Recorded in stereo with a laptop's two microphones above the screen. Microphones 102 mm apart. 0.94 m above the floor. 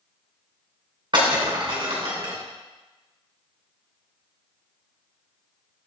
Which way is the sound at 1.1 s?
50° right (ahead or behind).